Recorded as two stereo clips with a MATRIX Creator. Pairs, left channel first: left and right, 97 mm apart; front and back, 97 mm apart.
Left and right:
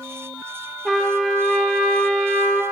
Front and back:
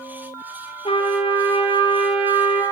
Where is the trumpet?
5° left, 3 m.